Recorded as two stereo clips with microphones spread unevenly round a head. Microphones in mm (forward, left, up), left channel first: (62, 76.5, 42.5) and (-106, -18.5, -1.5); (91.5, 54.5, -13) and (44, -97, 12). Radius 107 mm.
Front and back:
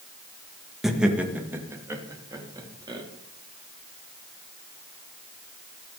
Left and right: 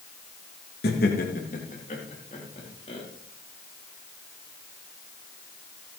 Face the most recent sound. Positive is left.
turn(degrees=140)